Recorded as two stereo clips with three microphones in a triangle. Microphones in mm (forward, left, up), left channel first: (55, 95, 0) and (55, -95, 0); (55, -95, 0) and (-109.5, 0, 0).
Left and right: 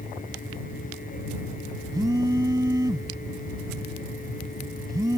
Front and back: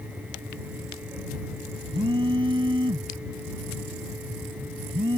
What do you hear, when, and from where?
1.9 s a phone buzzing: 155° right